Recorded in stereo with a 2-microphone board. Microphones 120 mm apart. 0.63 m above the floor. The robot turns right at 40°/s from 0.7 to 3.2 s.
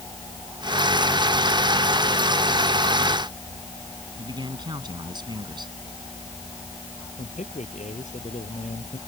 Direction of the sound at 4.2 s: 40° right (ahead or behind).